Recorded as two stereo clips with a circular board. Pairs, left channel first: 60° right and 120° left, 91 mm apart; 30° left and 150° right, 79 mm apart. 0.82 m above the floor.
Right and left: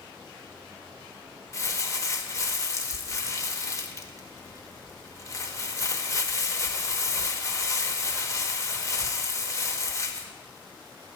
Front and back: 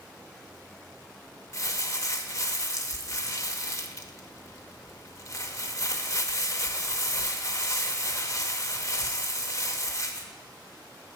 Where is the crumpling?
10° right, 0.7 m.